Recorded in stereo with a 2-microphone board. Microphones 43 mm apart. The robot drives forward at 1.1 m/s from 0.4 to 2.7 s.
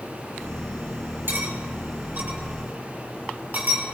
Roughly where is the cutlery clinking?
Right.